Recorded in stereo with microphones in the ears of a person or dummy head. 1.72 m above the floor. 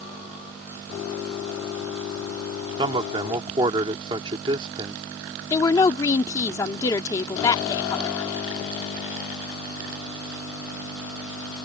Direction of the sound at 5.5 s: 20° left (ahead or behind).